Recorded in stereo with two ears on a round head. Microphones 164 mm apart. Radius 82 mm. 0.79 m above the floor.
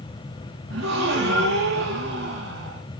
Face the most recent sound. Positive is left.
turn(degrees=-65)  # may be behind; listen again after turning